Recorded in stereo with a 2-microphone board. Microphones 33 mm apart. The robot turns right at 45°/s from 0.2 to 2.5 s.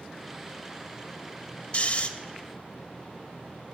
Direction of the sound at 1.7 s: 40° left (ahead or behind).